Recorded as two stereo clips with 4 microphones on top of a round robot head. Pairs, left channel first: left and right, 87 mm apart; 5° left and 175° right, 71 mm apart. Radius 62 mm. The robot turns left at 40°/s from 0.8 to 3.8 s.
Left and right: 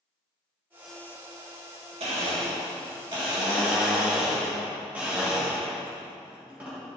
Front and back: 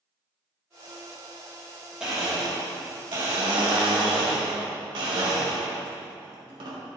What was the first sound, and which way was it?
A blender, 95° right.